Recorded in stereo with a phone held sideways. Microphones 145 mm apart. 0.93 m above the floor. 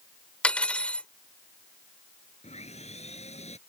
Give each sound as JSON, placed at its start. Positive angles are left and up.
{"t": 0.4, "sound": "cutlery clinking", "side_deg": 5}
{"t": 2.4, "sound": "sawing", "side_deg": 45}